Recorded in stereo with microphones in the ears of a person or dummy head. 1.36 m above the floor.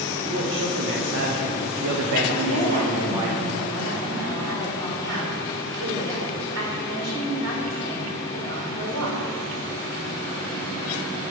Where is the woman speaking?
85° right, 4 m.